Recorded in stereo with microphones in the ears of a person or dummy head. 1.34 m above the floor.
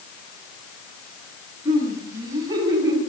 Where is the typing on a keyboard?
No typing on a keyboard in this recording.